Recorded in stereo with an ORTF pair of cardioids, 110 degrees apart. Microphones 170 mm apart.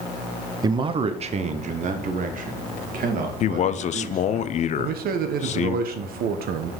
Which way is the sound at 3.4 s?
45° left.